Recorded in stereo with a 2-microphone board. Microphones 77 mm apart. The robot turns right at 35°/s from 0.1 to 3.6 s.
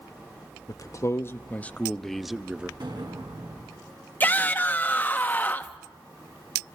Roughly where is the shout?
Left.